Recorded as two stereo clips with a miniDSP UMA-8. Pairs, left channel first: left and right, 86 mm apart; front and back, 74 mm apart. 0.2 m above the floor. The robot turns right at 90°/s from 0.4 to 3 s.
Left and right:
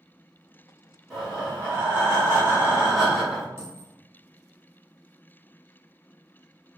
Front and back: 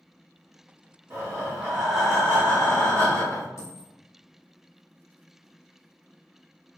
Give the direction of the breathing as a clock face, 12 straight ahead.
6 o'clock.